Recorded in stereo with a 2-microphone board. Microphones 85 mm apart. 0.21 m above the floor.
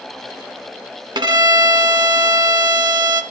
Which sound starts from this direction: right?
A violin, at 1.1 s.